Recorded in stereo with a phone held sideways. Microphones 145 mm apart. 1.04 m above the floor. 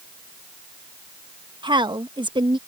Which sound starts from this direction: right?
A woman speaking, at 1.6 s.